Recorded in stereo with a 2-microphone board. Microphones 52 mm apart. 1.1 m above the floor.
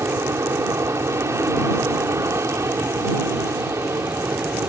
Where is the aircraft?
65° right (ahead or behind).